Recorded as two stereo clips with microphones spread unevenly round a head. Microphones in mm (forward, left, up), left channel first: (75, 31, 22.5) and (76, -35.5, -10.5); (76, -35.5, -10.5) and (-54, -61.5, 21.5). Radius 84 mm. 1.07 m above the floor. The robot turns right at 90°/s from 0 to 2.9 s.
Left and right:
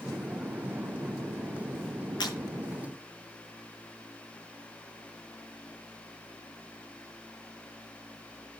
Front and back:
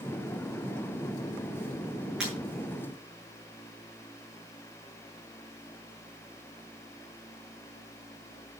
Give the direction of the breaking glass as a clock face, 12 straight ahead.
9 o'clock.